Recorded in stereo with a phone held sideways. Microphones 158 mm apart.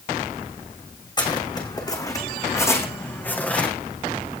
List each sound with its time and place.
1.2 s footsteps: 30° left (ahead or behind), 5 m; by 3.7 s 5° left (ahead or behind), 4 m